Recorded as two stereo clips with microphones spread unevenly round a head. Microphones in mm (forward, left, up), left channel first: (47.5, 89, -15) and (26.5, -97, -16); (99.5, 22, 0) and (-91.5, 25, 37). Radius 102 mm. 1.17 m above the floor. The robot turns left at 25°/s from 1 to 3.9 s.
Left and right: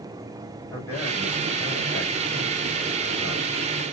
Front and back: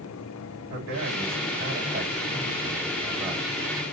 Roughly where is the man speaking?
Behind.